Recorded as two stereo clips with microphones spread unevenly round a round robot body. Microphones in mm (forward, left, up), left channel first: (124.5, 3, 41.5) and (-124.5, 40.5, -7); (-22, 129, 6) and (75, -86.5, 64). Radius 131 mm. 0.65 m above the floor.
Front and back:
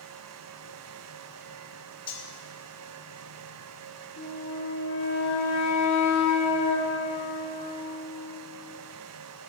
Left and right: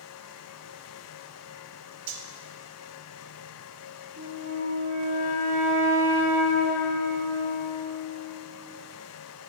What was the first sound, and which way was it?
Cutlery clinking, 85° right.